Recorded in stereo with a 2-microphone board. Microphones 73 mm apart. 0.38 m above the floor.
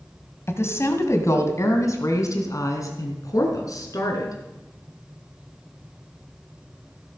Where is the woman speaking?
40° left (ahead or behind), 1.9 m; by 4.4 s 55° left (ahead or behind), 4 m.